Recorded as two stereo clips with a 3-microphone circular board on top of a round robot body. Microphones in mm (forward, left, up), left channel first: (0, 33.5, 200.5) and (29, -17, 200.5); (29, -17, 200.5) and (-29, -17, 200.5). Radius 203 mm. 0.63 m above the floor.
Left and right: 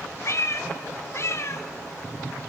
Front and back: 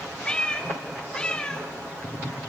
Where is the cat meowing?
75° left, 0.8 m.